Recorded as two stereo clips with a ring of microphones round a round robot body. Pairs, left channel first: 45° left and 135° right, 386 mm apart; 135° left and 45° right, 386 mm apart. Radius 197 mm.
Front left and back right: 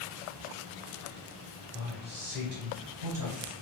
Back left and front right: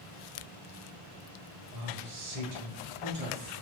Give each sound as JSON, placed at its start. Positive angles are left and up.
{"t": 1.7, "sound": "a man speaking", "azimuth_deg": -55, "distance_m": 1.4}